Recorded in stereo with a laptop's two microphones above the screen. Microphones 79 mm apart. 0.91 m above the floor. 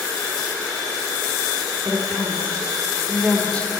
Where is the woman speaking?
15° left (ahead or behind), 4 m.